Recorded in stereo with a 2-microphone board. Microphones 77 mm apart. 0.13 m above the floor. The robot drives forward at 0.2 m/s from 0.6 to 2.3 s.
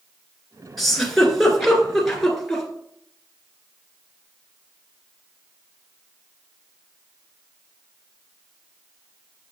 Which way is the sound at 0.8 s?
Centre (ahead or behind).